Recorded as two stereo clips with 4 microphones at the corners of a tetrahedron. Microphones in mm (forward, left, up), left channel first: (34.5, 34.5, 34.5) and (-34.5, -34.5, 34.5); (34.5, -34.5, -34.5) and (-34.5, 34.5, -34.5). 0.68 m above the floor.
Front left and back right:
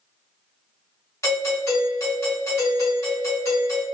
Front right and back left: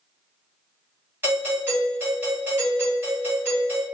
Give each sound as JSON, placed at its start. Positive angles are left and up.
{"t": 1.2, "sound": "a doorbell", "azimuth_deg": 85, "distance_m": 1.9}